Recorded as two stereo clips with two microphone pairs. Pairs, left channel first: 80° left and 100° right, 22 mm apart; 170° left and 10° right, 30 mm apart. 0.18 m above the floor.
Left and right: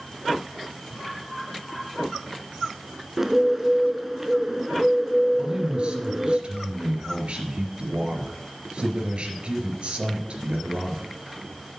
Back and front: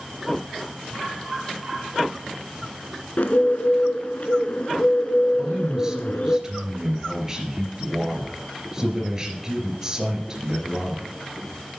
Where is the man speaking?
75° right, 3 m.